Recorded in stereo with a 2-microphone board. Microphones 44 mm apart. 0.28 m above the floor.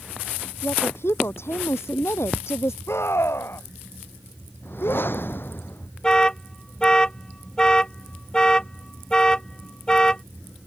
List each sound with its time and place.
0.6 s a woman speaking: 70° left (ahead or behind); by 2.8 s 80° left
2.9 s a scream: 70° left (ahead or behind)
4.6 s a whoosh: 55° left (ahead or behind)
6.0 s an alarm: 15° left (ahead or behind)